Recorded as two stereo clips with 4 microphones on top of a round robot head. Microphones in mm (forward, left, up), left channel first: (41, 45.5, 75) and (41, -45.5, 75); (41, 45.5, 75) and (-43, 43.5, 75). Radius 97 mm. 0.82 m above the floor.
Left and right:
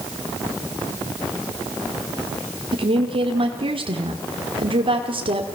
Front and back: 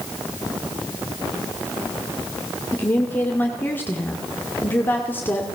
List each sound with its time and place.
2.7 s a woman speaking: 70° right, 2.5 m